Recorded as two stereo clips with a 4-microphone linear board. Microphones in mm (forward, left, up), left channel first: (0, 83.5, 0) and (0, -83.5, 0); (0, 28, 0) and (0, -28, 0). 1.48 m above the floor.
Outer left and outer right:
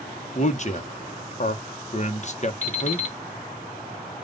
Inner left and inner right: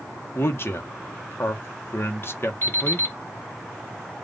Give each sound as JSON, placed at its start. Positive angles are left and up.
{"t": 0.3, "sound": "a man speaking", "side_deg": 45, "distance_m": 1.0}
{"t": 2.6, "sound": "an alarm clock", "side_deg": 45, "distance_m": 2.0}